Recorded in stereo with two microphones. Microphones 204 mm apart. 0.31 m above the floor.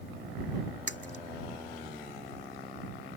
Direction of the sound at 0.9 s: 60° left (ahead or behind).